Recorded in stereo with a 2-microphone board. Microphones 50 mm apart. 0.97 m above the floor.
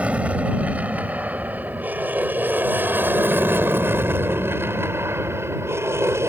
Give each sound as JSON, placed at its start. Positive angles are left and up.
{"t": 0.0, "sound": "an aircraft", "side_deg": -25}